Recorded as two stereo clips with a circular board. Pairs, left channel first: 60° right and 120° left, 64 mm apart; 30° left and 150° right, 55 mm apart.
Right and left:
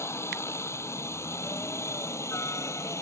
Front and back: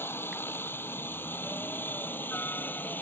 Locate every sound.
0.0 s a helicopter: 15° right; by 3.0 s 25° right